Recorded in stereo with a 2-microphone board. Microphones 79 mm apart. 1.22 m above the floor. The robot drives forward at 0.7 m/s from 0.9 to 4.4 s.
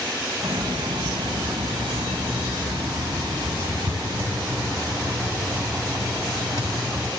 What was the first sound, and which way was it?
A hiss, 70° right (ahead or behind).